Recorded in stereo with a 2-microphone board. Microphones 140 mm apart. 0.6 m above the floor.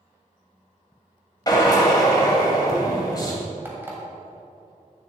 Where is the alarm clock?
15° right (ahead or behind), 1.8 m.